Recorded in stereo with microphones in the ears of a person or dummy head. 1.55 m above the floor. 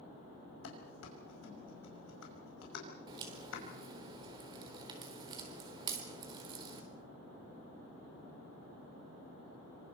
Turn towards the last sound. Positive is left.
turn(degrees=-20)  # may be behind; listen again after turning